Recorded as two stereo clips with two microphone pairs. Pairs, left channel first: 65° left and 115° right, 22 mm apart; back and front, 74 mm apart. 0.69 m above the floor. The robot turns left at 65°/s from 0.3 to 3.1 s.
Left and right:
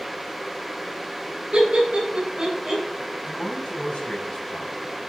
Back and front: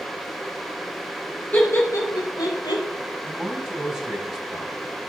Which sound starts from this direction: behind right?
Laughter, at 1.5 s.